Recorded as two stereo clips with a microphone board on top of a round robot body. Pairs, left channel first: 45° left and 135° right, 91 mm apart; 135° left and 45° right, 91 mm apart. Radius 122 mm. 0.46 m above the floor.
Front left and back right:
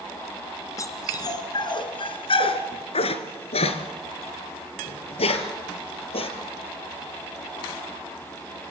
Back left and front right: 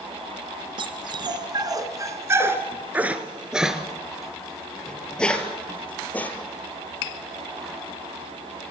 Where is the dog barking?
10° right, 2 m; by 6.3 s 60° left, 4 m.